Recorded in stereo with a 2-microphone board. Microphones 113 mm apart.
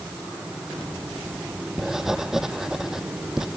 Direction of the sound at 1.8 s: 5° right (ahead or behind).